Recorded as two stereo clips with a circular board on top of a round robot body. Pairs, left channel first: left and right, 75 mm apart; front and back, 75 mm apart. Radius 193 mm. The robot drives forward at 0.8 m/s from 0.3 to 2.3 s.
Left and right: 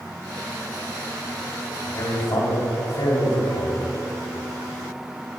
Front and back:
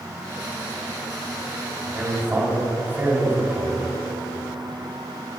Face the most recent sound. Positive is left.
turn(degrees=120)